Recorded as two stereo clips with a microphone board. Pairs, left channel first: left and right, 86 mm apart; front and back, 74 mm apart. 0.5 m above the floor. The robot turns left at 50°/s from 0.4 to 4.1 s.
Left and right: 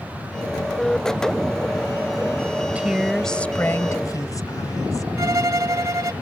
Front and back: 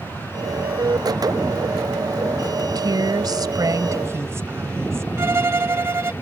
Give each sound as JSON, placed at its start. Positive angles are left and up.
{"t": 2.6, "sound": "a woman speaking", "azimuth_deg": -155}
{"t": 5.2, "sound": "a violin", "azimuth_deg": -130}